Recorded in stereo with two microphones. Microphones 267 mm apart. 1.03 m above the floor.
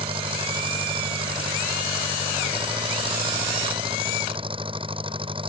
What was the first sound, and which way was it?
An engine running, 20° right (ahead or behind).